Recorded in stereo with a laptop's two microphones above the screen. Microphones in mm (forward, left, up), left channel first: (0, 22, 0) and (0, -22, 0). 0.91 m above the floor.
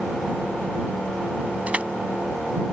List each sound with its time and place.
1.7 s crushing: 25° right (ahead or behind)